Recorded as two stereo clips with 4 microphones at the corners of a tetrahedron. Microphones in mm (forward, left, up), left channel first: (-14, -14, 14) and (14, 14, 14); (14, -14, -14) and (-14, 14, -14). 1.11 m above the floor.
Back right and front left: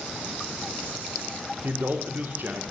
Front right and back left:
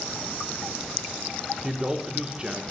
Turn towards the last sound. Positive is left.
turn(degrees=70)